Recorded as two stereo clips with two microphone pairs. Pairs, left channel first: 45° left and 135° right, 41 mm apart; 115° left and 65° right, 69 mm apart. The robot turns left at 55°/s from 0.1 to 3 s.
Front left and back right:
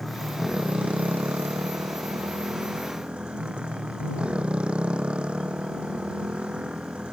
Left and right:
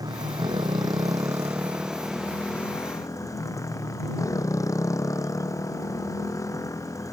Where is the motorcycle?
45° right; by 7.1 s 155° left.